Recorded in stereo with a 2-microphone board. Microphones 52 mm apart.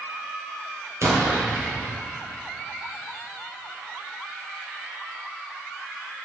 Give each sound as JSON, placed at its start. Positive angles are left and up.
{"t": 1.0, "sound": "an explosion", "side_deg": -75, "distance_m": 2.0}